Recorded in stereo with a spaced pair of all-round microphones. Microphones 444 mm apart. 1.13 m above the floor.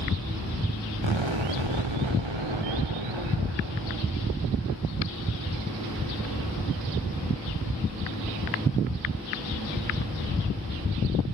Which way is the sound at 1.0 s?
85° right.